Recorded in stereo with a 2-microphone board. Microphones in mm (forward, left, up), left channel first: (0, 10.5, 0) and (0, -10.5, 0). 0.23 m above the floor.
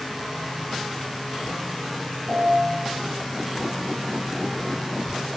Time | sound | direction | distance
2.3 | a piano | 70° right (ahead or behind) | 3 m